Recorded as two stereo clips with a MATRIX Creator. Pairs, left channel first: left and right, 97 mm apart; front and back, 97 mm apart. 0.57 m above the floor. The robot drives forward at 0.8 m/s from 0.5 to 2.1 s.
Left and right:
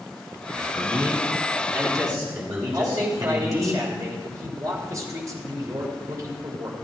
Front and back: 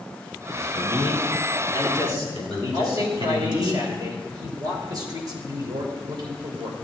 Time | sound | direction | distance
0.5 | a man speaking | 135° right | 4.5 m
2.7 | a man speaking | 140° right | 3 m